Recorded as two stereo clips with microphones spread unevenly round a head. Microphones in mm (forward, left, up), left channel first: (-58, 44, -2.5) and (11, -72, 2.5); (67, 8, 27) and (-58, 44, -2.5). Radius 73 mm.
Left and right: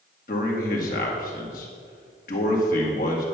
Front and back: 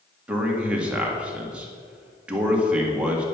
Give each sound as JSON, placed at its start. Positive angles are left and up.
{"t": 0.3, "sound": "a man speaking", "azimuth_deg": 85, "distance_m": 2.0}